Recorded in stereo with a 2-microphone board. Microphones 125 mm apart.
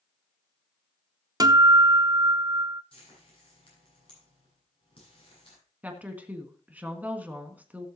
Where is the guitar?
30° right (ahead or behind), 0.7 m.